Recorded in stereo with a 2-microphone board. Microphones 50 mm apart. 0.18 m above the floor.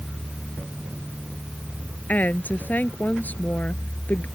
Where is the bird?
No bird in this recording.